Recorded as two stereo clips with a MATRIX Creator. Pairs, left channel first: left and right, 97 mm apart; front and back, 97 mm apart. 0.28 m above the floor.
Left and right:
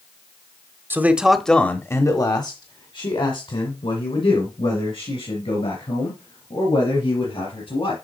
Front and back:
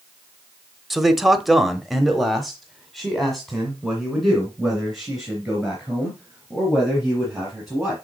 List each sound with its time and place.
0.9 s a man speaking: 95° right, 1.0 m; by 7.9 s 90° left, 5.5 m